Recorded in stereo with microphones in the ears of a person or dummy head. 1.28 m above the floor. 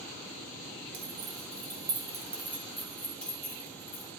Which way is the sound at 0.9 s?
50° right (ahead or behind).